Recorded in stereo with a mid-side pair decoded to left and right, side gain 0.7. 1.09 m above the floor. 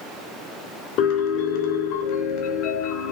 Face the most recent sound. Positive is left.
turn(degrees=60)